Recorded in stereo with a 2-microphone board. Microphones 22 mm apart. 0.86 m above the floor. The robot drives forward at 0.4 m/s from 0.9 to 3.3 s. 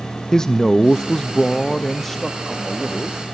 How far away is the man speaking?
About 0.5 m.